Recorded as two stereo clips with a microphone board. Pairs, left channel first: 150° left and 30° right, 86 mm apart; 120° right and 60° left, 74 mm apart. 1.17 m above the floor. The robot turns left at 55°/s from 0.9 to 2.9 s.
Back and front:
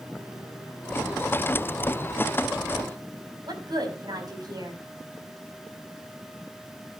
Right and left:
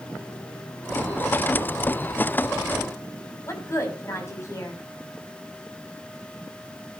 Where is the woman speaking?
70° right, 6.5 m.